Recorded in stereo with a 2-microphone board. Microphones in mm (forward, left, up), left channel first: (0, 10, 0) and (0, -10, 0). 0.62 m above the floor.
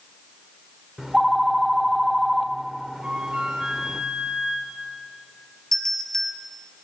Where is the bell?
20° left (ahead or behind), 1.9 m.